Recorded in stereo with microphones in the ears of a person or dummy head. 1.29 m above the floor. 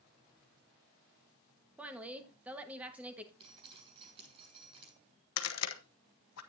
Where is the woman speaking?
5° right (ahead or behind), 1.4 m.